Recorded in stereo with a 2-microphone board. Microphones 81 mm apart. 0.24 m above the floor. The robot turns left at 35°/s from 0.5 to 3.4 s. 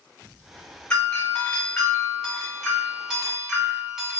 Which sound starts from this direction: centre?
A doorbell, at 0.9 s.